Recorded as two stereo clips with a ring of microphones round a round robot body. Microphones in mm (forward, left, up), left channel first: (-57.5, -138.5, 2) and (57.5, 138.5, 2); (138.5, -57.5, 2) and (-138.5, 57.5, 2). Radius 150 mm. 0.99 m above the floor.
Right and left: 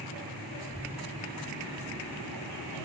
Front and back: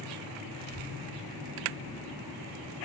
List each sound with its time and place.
0.6 s a child speaking: 30° right